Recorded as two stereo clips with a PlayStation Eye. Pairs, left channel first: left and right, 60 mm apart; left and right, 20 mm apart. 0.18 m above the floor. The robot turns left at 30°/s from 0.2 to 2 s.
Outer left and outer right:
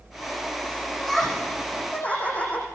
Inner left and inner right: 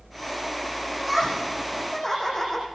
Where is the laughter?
175° right, 10 m; by 2.6 s 155° left, 10 m.